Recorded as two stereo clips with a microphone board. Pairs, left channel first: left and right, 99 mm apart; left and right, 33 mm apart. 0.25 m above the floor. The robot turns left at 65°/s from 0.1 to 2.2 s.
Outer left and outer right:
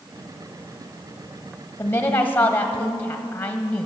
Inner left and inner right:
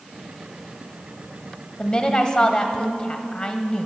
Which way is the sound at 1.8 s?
25° left (ahead or behind).